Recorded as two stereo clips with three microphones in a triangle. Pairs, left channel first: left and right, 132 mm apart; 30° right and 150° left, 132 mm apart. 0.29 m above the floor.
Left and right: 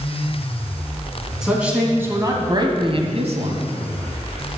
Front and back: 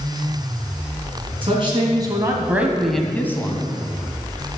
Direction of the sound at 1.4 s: 175° right.